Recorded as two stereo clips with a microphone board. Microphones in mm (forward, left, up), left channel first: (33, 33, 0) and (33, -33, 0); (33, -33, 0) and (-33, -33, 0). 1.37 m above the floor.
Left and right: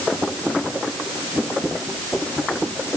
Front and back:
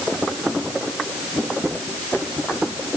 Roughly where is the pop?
No pop in this recording.